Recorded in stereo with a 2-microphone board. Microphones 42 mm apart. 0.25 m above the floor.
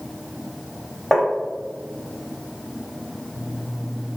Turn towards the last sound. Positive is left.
turn(degrees=-5)  # may be behind; listen again after turning